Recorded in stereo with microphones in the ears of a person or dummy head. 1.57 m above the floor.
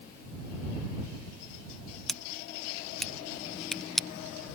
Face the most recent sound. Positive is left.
turn(degrees=0)  # may be behind; listen again after turning